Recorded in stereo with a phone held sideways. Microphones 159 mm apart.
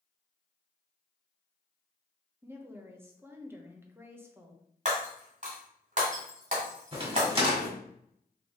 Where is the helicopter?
I don't hear a helicopter.